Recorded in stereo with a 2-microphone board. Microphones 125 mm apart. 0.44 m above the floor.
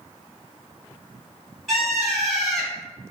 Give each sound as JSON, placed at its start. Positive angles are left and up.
{"t": 1.7, "sound": "a bird", "side_deg": 0, "distance_m": 0.9}